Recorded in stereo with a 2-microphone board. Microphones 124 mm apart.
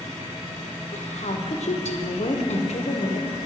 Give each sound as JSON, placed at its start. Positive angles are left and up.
{"t": 0.9, "sound": "a woman speaking", "side_deg": 65, "distance_m": 0.8}